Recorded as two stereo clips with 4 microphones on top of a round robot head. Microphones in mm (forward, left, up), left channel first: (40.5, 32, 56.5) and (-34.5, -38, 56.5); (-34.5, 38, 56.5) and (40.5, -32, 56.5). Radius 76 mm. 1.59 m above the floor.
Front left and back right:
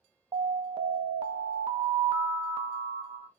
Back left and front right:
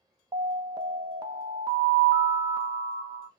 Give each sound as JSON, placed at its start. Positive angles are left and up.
{"t": 0.3, "sound": "an alarm", "azimuth_deg": -95, "distance_m": 0.7}